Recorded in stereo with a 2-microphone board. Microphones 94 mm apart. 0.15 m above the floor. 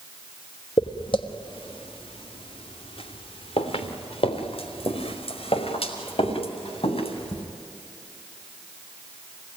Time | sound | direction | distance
0.8 | footsteps | 60° left (ahead or behind) | 1.9 m